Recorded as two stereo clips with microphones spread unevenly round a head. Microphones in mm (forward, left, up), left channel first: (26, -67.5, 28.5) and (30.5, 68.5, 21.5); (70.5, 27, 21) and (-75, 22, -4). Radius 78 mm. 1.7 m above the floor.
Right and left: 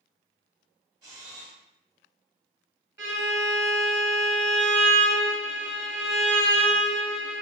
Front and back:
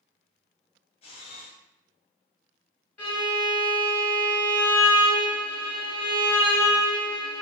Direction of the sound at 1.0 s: 30° left.